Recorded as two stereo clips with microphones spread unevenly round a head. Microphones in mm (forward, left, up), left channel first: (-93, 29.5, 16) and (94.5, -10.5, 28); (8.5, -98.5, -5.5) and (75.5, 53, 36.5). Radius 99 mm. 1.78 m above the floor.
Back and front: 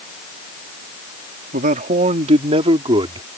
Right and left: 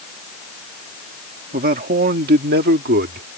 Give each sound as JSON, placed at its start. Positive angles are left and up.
{"t": 1.5, "sound": "a man speaking", "azimuth_deg": 35}